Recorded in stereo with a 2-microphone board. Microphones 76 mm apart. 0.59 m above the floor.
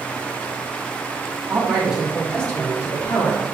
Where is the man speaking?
15° right (ahead or behind), 2.0 m; by 3.4 s 55° left (ahead or behind), 1.4 m.